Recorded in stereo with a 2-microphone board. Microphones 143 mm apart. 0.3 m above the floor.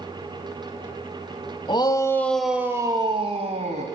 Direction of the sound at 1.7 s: 35° left (ahead or behind).